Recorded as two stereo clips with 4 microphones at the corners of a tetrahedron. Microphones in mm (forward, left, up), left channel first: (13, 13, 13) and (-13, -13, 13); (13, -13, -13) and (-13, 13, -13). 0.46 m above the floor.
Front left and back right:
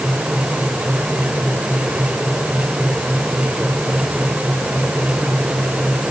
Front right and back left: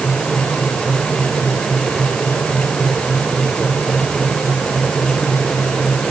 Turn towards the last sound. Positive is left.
No sound to turn to.